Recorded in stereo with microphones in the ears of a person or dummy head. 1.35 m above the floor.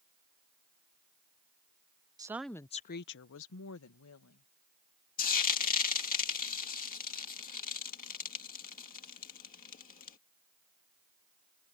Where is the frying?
40° left (ahead or behind).